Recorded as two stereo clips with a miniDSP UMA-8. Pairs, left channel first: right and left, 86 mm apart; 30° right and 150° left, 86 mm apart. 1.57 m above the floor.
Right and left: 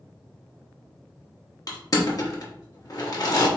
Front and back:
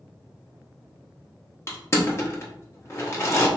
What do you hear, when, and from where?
1.7 s crushing: 75° right, 0.7 m